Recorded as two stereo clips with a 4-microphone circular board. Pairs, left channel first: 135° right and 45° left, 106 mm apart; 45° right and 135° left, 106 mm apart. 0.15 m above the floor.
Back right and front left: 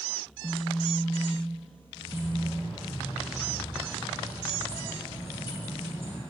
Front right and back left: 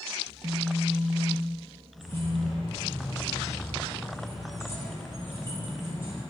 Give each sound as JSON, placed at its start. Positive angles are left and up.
{"t": 0.3, "sound": "a phone buzzing", "azimuth_deg": 155, "distance_m": 0.7}
{"t": 2.0, "sound": "keys jangling", "azimuth_deg": -110, "distance_m": 2.0}